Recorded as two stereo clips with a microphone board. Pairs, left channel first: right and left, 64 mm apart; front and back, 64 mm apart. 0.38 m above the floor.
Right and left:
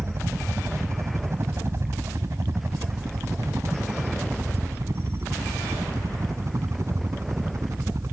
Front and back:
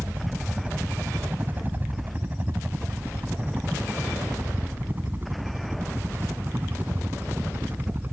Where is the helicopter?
125° left.